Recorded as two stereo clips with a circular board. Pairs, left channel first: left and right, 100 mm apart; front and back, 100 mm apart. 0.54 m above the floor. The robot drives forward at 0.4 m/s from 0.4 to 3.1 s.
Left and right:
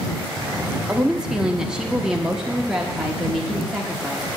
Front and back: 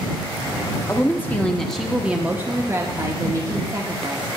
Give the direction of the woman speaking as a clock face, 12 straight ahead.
12 o'clock.